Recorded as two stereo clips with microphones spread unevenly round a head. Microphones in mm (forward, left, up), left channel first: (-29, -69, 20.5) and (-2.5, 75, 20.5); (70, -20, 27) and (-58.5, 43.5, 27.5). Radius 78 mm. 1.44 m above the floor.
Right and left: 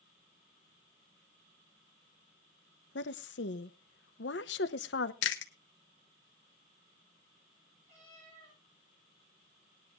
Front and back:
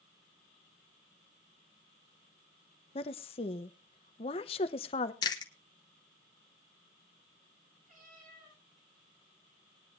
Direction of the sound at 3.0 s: 80° right.